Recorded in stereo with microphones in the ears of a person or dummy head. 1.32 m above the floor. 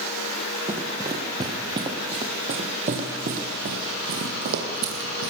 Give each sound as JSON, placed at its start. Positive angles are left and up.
{"t": 0.7, "sound": "running footsteps", "side_deg": -20, "distance_m": 3.5}